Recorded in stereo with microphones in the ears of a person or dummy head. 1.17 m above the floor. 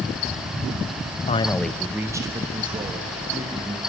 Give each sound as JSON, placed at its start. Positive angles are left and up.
{"t": 1.3, "sound": "a man speaking", "side_deg": 35, "distance_m": 0.5}